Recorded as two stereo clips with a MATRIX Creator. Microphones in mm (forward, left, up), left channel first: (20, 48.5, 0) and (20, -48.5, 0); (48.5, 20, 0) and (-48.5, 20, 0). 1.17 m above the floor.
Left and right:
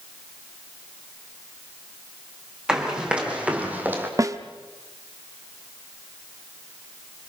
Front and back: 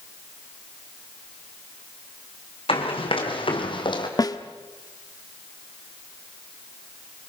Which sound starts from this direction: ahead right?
A snare drum, at 4.2 s.